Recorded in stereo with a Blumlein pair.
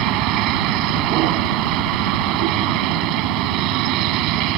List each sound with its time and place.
0.0 s a vehicle: 40° right